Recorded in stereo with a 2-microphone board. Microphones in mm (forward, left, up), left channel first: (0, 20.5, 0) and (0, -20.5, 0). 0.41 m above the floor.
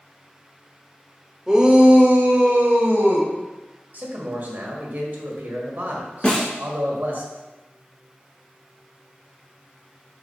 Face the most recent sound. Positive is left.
turn(degrees=25)  # may be behind; listen again after turning